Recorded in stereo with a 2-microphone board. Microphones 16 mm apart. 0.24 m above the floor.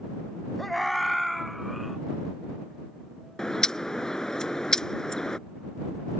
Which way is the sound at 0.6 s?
10° left (ahead or behind).